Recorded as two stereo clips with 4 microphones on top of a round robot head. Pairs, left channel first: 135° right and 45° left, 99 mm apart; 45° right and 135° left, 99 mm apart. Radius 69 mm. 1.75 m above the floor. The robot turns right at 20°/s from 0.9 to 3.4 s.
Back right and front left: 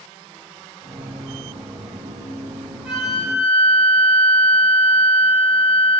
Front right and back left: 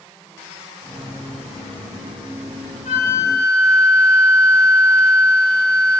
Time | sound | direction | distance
2.9 | a flute | 35° right | 2.5 m